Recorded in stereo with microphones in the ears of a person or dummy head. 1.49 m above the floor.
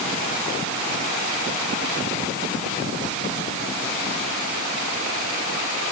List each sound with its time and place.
Only background noise.